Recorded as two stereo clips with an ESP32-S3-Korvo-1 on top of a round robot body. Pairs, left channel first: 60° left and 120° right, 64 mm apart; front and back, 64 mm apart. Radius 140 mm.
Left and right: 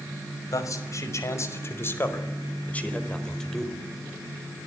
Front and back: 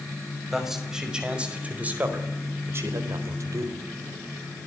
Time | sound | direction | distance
0.5 | a man speaking | 95° left | 5.5 m